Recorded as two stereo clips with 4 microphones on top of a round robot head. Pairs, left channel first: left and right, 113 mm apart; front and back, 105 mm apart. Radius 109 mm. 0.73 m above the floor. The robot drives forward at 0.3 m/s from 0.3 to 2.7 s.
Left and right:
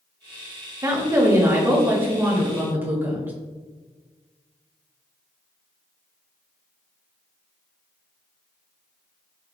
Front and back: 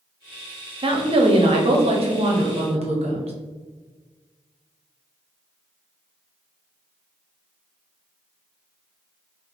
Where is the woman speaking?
150° right, 0.8 m; by 3.3 s 165° right, 1.3 m.